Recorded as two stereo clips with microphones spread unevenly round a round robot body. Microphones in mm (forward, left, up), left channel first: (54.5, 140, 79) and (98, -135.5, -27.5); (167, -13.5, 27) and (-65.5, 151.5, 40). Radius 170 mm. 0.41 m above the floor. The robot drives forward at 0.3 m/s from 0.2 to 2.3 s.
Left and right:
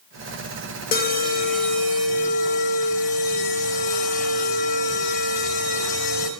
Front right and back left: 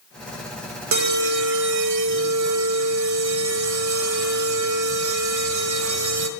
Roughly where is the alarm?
Behind.